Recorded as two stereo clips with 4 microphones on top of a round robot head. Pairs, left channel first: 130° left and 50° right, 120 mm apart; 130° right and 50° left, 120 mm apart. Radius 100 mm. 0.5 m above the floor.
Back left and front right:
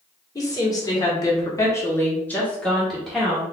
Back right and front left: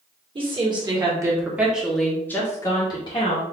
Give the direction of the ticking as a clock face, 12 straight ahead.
I don't hear ticking.